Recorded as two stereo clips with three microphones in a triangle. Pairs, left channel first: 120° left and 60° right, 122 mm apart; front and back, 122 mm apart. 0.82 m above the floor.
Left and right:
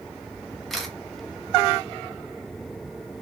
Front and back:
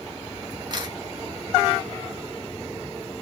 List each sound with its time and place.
0.7 s a camera shutter: 150° right, 1.1 m